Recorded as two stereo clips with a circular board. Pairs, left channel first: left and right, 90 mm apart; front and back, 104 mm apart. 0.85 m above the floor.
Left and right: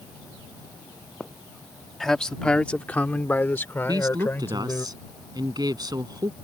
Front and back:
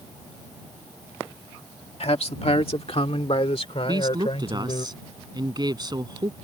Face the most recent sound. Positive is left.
turn(degrees=-130)